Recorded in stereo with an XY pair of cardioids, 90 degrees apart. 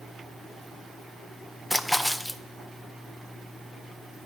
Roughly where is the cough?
I don't hear a cough.